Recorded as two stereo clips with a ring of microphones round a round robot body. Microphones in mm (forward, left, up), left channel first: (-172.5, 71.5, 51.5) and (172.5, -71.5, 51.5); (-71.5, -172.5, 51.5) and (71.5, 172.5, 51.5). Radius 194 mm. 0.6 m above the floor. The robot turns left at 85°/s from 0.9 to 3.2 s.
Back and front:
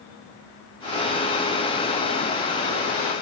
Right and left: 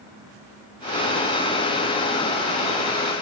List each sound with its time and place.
Only background noise.